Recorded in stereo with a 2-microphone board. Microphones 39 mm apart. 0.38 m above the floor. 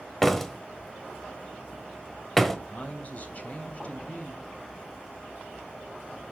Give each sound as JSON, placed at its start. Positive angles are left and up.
{"t": 0.2, "sound": "a door slam", "side_deg": 5, "distance_m": 1.2}
{"t": 2.7, "sound": "a man speaking", "side_deg": 40, "distance_m": 2.5}